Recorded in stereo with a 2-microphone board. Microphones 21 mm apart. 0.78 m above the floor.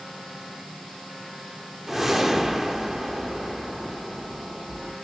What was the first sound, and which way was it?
A whoosh, 15° right (ahead or behind).